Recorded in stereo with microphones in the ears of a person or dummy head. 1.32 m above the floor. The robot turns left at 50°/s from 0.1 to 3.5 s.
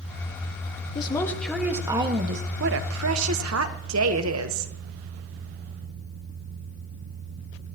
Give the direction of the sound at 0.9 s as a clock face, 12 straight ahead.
11 o'clock.